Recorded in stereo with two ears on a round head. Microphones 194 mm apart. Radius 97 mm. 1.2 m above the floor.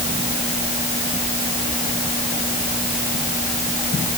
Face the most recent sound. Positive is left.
No sound to turn to.